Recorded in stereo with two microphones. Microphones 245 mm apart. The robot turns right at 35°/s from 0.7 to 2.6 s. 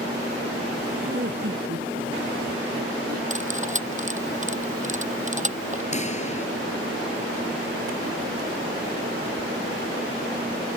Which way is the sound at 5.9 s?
30° left (ahead or behind).